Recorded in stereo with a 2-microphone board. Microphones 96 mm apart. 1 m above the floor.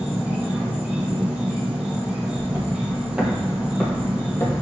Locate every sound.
0.0 s an insect: 15° right (ahead or behind), 1.8 m
2.3 s footsteps: 40° right (ahead or behind), 1.3 m; by 4.5 s 30° left (ahead or behind), 1.4 m